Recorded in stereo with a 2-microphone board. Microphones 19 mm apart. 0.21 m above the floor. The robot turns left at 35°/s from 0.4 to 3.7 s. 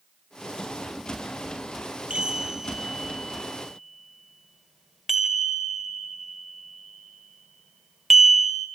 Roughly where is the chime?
Right.